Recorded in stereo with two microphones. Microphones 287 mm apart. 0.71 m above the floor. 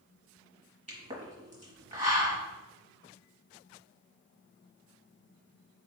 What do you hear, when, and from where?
0.9 s a pop: 25° right (ahead or behind), 1.3 m